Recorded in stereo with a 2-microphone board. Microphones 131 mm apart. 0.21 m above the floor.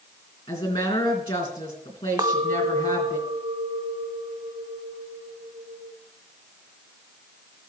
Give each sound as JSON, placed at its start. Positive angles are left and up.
{"t": 0.5, "sound": "a woman speaking", "side_deg": 45, "distance_m": 3.0}
{"t": 2.2, "sound": "a clink", "side_deg": -35, "distance_m": 0.7}